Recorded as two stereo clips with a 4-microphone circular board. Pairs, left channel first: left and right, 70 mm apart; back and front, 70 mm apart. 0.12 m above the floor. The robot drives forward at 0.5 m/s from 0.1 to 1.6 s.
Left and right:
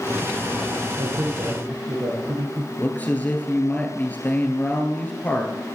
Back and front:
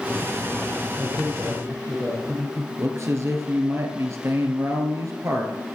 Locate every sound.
1.0 s a man speaking: 65° right, 2.5 m; by 2.7 s 70° right, 2.5 m
2.8 s a man speaking: 30° left, 2 m